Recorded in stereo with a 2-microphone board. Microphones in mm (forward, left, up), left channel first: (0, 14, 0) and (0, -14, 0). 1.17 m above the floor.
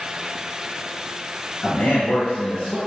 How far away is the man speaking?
About 0.6 m.